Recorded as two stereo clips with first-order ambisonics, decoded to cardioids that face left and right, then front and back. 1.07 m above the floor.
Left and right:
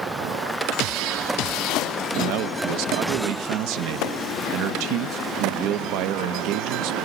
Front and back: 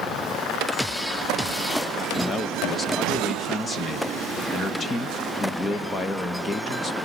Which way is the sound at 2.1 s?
75° right.